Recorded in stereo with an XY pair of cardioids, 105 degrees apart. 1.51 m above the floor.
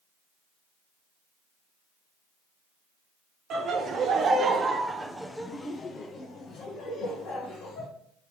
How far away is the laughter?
About 1.4 m.